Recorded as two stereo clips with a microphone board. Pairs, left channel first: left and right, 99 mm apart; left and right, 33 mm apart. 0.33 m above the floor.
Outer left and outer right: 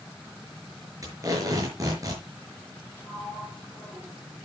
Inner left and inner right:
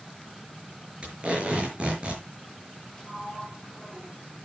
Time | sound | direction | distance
1.0 | tape being pulled | 35° right (ahead or behind) | 5.5 m
3.0 | a sliding door | 20° left (ahead or behind) | 8 m